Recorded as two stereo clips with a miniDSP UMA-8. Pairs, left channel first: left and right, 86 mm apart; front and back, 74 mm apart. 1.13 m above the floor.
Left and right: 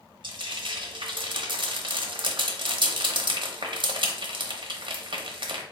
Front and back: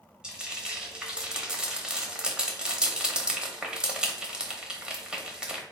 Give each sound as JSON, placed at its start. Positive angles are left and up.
{"t": 0.2, "sound": "frying", "azimuth_deg": -100, "distance_m": 0.9}